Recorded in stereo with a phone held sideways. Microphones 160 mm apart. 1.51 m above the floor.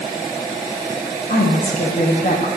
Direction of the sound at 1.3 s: 60° left (ahead or behind).